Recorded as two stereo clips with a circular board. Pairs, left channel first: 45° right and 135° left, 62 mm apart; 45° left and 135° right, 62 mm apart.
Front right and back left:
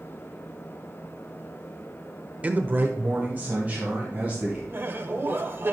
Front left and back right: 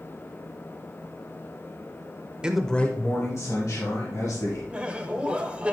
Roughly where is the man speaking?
Behind.